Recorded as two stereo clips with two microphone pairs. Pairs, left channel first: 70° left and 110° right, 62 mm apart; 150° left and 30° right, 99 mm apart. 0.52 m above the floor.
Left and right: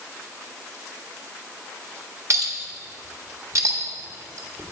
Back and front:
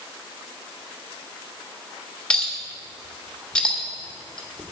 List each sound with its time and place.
2.3 s a clink: 130° right, 1.2 m